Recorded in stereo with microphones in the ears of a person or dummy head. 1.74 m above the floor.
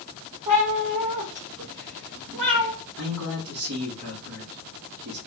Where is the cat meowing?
30° right (ahead or behind), 1.3 m.